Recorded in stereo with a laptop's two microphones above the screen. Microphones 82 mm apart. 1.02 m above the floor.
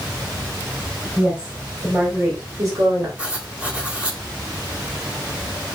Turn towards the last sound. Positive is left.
turn(degrees=-15)  # may be behind; listen again after turning